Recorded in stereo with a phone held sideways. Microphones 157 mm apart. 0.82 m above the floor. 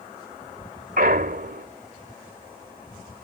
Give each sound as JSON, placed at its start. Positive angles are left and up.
{"t": 1.0, "sound": "a clunk", "side_deg": -70}